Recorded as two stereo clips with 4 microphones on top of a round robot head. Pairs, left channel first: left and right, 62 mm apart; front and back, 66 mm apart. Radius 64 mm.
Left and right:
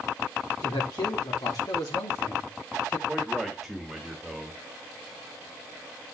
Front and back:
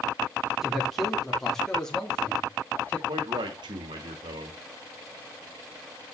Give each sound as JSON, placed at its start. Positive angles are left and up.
{"t": 0.6, "sound": "a man speaking", "azimuth_deg": 95, "distance_m": 4.0}
{"t": 3.1, "sound": "a man speaking", "azimuth_deg": 180, "distance_m": 2.0}